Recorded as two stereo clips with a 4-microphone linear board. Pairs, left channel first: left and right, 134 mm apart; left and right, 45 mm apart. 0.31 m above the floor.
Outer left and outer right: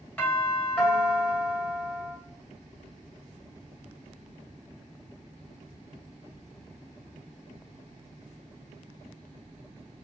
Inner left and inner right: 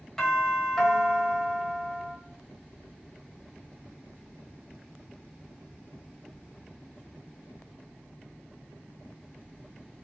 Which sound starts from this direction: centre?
A doorbell, at 0.2 s.